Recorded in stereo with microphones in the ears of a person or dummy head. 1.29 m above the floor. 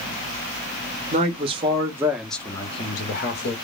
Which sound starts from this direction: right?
A man speaking, at 1.1 s.